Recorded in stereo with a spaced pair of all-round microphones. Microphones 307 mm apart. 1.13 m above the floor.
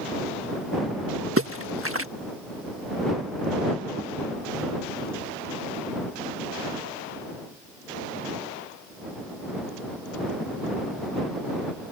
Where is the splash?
45° right (ahead or behind).